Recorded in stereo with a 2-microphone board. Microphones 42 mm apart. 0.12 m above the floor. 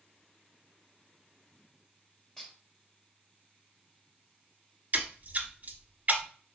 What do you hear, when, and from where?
2.4 s dishes clattering: 20° left (ahead or behind), 1.6 m
4.9 s a splash: 40° right (ahead or behind), 0.8 m